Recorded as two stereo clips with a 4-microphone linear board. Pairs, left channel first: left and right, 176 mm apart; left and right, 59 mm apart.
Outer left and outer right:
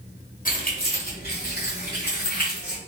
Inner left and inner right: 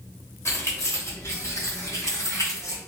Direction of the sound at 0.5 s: 50° left (ahead or behind).